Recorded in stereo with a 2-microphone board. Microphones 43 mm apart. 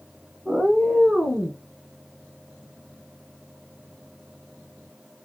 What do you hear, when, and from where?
0.5 s a cat meowing: 15° right (ahead or behind), 0.8 m; by 1.6 s 25° right (ahead or behind), 1.7 m